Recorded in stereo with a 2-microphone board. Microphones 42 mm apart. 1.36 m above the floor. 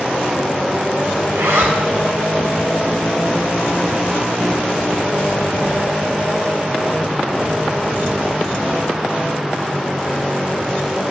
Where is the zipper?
80° right, 7 m.